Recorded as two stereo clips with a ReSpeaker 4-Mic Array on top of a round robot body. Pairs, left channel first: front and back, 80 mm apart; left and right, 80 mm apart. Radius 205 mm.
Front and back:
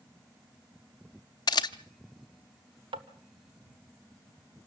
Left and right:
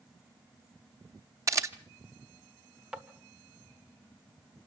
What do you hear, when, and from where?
1.5 s a camera shutter: 35° right, 0.7 m
2.9 s tapping: 170° right, 1.4 m